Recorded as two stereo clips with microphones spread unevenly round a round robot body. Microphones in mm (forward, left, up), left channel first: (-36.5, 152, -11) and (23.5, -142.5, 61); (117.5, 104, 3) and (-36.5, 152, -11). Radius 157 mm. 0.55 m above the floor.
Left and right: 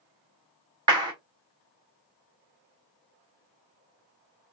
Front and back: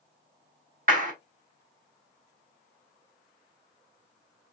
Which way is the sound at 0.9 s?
160° right.